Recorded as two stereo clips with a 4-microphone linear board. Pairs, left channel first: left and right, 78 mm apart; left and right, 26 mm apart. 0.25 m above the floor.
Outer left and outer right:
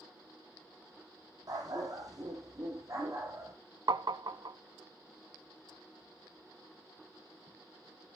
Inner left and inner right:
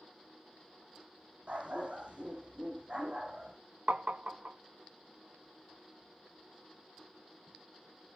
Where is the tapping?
65° right (ahead or behind), 0.6 m.